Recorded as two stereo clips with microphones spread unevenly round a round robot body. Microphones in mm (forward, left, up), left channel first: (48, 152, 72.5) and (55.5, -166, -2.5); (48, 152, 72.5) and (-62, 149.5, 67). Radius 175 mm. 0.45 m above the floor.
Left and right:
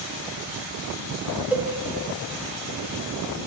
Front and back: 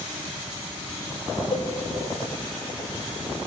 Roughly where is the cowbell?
Ahead.